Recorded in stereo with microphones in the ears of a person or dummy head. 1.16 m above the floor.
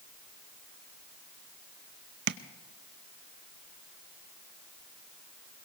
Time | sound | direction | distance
2.3 | tapping | 80° right | 0.6 m